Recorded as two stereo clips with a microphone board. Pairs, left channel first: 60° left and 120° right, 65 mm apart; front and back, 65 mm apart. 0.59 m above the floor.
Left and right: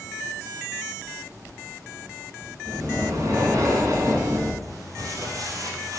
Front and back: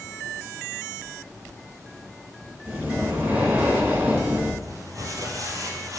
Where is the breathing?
115° right, 3 m.